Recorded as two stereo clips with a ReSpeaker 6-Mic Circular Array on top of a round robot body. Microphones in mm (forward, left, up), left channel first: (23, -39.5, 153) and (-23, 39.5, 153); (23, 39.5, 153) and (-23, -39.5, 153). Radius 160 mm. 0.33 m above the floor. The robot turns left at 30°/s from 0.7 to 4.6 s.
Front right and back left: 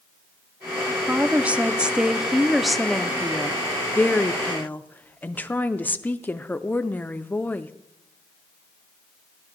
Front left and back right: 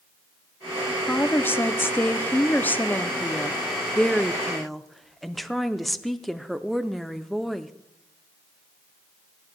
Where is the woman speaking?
80° left, 0.8 m; by 7.7 s 25° right, 0.8 m.